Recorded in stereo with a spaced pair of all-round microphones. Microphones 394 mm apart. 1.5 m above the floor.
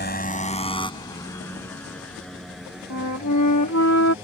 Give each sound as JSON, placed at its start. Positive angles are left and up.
{"t": 0.0, "sound": "a motorcycle", "side_deg": 25}
{"t": 2.9, "sound": "a flute", "side_deg": 45}